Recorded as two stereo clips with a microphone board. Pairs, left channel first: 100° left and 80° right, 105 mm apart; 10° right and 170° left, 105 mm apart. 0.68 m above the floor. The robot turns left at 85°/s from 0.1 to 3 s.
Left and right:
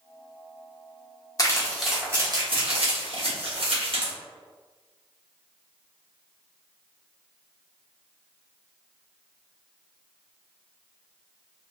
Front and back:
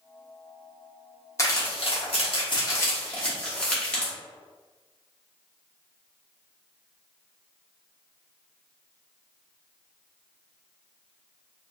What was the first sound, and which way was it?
Crumpling, 45° left.